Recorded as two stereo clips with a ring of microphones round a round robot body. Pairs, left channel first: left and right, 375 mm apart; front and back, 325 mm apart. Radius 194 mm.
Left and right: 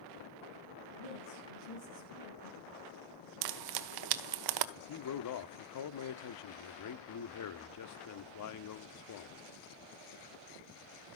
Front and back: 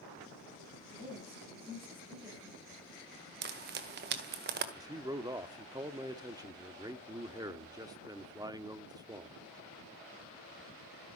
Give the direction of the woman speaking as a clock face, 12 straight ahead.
9 o'clock.